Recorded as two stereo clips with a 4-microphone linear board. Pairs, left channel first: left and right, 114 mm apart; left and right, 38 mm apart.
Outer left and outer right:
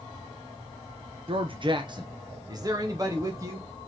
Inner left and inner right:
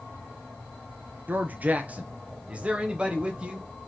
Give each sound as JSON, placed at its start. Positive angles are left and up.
{"t": 1.3, "sound": "a man speaking", "side_deg": -55, "distance_m": 0.8}